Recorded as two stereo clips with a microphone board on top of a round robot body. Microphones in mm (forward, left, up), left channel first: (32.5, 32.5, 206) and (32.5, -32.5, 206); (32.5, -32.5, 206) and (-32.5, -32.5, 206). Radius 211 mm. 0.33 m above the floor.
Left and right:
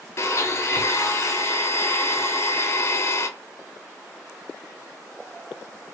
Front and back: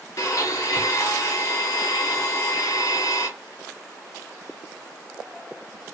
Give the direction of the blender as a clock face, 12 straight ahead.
11 o'clock.